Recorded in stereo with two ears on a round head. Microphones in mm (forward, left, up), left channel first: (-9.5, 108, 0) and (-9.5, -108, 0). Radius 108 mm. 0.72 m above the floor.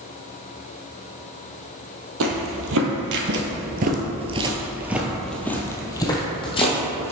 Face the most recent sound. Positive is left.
turn(degrees=25)  # may be behind; listen again after turning